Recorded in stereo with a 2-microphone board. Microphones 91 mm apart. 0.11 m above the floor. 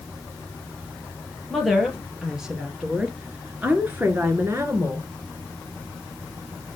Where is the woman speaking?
Centre (ahead or behind), 2.5 m; by 5.1 s 35° right (ahead or behind), 1.6 m.